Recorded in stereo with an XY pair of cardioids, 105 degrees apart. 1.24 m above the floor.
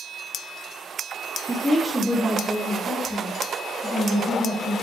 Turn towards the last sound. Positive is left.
turn(degrees=10)